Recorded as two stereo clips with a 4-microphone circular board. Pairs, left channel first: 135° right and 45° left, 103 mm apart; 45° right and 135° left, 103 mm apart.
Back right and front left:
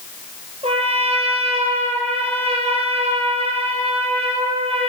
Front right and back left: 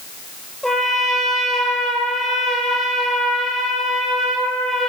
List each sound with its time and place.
0.6 s a trumpet: 40° left, 2.5 m